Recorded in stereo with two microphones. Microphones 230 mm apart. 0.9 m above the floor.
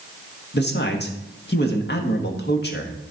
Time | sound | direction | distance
0.5 | a man speaking | 50° left (ahead or behind) | 1.5 m